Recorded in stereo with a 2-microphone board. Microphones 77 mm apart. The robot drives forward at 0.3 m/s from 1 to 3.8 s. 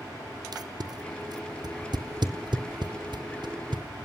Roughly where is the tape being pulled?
Right.